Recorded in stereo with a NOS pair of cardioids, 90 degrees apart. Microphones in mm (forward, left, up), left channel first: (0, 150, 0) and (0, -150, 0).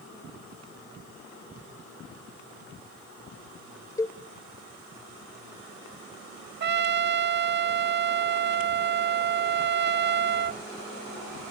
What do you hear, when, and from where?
4.0 s a cowbell: 10° left, 0.5 m
6.6 s a trumpet: 40° right, 0.6 m